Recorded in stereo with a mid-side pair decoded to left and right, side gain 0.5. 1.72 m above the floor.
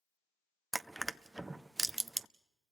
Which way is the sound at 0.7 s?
5° right.